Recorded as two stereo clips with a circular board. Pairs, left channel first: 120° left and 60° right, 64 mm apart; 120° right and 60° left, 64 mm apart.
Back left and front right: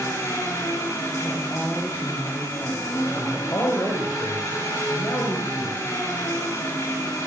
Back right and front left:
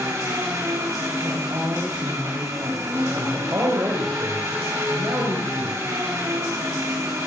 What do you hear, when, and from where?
0.0 s an engine running: 90° left, 6 m
1.2 s a woman speaking: 65° left, 9 m
3.1 s a man speaking: 90° left, 5.5 m